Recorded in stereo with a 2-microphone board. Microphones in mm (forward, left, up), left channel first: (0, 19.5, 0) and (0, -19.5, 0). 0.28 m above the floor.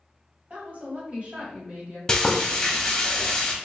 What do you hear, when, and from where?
0.5 s a woman speaking: 40° right (ahead or behind), 1.5 m
2.1 s frying: 15° left (ahead or behind), 0.6 m